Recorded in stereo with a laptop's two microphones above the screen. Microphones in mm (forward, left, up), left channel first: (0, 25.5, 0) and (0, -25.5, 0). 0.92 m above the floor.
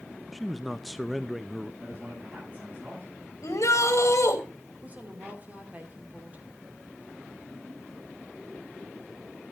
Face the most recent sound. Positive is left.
turn(degrees=-30)  # may be behind; listen again after turning